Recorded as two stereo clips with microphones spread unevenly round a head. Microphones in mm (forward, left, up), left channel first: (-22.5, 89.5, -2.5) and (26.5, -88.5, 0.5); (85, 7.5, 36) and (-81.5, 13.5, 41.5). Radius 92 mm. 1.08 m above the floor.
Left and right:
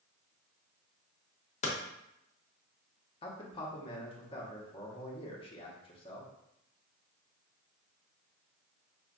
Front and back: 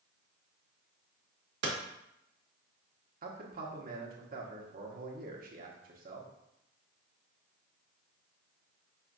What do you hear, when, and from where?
1.6 s hammering: 160° left, 1.1 m
3.2 s a man speaking: 165° left, 1.1 m